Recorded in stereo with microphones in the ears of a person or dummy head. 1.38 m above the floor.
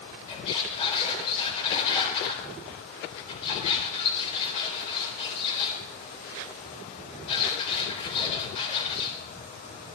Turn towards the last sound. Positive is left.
turn(degrees=35)  # may be behind; listen again after turning